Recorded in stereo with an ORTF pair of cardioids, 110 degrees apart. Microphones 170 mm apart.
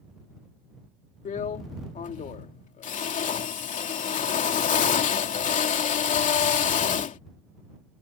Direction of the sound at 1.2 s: 50° left.